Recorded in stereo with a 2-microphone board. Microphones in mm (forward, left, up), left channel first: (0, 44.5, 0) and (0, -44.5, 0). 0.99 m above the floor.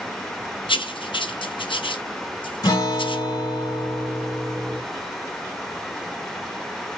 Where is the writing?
70° left (ahead or behind), 0.7 m.